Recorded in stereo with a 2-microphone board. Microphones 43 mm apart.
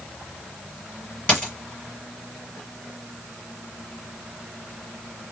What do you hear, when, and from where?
1.3 s a dropped coin: 25° left (ahead or behind), 4 m